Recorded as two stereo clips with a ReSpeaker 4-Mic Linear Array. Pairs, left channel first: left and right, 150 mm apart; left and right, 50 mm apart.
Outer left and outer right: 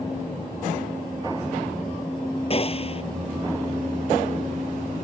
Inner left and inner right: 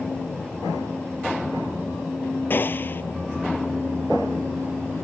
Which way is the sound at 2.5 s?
40° left (ahead or behind).